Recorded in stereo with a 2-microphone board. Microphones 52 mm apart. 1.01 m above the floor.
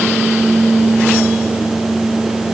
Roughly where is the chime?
I don't hear a chime.